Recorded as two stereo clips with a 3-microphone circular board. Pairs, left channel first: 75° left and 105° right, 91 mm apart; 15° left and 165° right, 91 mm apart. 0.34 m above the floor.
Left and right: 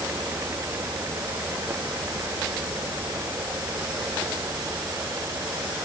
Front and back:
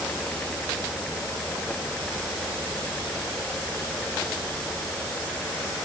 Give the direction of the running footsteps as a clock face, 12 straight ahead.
No running footsteps in this recording.